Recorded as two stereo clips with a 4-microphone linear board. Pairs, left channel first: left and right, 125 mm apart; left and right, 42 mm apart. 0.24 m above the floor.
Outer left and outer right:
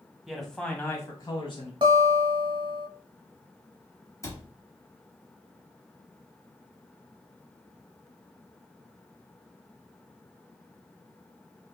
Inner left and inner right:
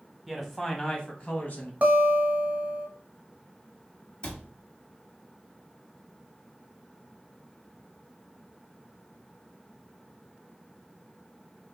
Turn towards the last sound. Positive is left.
turn(degrees=25)  # may be behind; listen again after turning